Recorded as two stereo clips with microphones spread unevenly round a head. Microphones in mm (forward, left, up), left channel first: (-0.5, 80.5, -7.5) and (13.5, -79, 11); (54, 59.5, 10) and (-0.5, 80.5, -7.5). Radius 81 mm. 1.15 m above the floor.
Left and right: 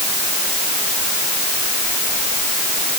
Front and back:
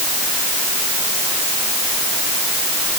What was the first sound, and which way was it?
Only background noise.